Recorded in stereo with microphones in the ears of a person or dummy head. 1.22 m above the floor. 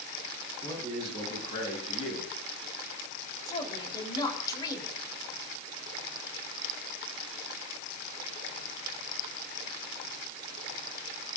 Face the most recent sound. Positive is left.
turn(degrees=25)  # may be behind; listen again after turning